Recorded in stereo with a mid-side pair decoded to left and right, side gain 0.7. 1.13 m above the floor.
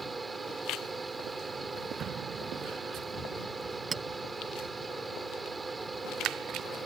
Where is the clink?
25° right.